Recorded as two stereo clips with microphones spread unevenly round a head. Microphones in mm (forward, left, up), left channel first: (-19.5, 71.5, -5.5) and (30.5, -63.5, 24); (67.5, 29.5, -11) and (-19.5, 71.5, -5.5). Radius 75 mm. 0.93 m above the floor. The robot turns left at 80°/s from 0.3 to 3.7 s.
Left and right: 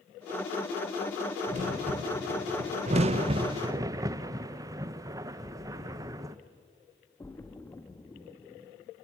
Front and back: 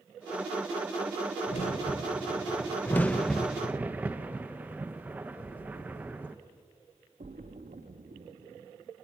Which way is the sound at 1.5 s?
20° right.